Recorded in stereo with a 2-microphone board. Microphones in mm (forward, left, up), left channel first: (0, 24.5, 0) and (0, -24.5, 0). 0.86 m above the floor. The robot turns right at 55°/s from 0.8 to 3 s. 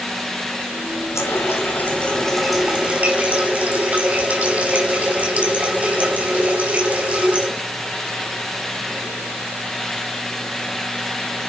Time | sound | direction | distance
1.1 | a running tap | 105° left | 5 m